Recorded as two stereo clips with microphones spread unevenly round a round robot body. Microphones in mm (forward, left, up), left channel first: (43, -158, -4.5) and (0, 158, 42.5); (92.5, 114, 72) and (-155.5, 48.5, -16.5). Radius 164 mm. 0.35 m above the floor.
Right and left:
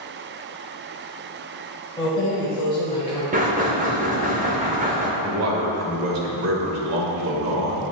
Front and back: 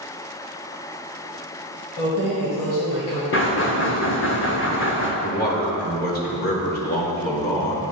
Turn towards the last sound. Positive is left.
turn(degrees=75)